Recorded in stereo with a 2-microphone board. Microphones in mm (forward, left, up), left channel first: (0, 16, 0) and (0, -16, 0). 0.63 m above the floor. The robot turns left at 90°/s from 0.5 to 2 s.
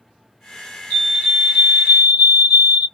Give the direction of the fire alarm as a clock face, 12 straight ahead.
11 o'clock.